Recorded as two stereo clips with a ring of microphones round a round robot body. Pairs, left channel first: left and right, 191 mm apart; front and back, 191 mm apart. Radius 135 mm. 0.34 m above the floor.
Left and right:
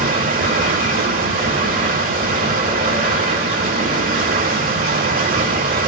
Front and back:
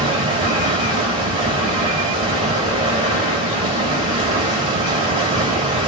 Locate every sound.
0.0 s running water: 120° right, 1.5 m